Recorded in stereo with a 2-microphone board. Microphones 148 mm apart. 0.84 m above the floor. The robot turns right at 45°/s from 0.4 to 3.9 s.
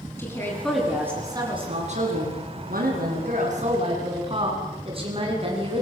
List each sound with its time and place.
0.2 s a woman speaking: 165° left, 9.5 m; by 5.8 s 40° right, 9.5 m